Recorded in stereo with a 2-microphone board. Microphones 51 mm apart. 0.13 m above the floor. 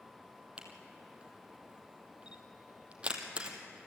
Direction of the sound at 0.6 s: 25° right (ahead or behind).